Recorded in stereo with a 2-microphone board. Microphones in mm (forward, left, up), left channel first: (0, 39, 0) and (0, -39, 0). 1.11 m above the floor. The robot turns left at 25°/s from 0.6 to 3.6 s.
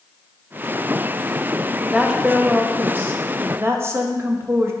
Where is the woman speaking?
10° right, 0.8 m; by 4.7 s 55° right, 0.8 m.